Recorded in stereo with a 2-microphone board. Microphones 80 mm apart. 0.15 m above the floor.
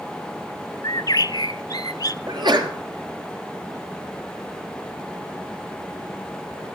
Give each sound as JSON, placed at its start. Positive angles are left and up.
{"t": 0.8, "sound": "a bird", "side_deg": 55, "distance_m": 0.5}
{"t": 2.3, "sound": "a sneeze", "side_deg": -65, "distance_m": 3.0}